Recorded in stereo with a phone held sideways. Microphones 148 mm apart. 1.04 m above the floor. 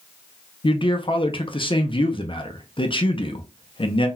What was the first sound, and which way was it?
A man speaking, 35° left (ahead or behind).